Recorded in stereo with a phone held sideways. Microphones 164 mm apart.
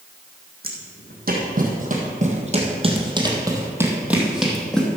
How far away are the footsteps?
About 2.5 m.